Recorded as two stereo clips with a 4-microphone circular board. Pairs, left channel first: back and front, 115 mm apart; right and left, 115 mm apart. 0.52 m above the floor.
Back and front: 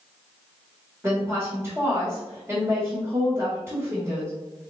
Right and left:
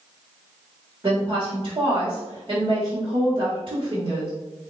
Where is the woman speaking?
60° left, 1.7 m.